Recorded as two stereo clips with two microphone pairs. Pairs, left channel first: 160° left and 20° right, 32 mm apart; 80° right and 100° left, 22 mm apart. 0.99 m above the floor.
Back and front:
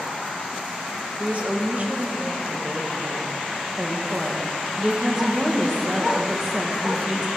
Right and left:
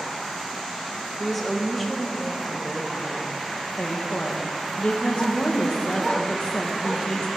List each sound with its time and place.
1.2 s a woman speaking: 10° left, 1.0 m
3.8 s a woman speaking: 90° right, 0.9 m